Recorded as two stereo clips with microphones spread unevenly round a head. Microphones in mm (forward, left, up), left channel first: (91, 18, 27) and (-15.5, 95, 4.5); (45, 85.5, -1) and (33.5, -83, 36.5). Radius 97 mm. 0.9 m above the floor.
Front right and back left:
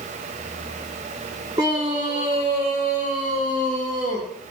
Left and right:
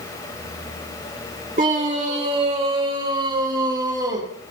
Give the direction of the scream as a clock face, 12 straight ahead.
5 o'clock.